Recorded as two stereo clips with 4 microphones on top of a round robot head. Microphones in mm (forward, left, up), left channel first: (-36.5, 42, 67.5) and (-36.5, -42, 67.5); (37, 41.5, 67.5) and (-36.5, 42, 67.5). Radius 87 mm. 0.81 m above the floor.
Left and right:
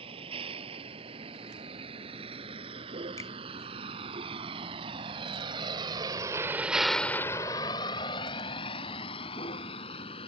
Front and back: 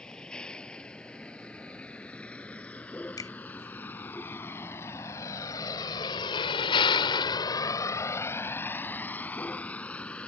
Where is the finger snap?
35° left.